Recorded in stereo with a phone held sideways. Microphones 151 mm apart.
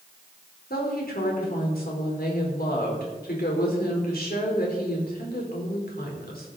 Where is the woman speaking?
85° left, 4 m.